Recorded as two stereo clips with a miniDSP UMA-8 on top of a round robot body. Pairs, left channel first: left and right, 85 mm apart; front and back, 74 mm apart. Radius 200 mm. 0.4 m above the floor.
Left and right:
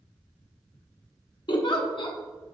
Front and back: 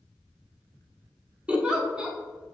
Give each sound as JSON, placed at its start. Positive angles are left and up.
{"t": 1.5, "sound": "a giggle", "azimuth_deg": 105, "distance_m": 1.2}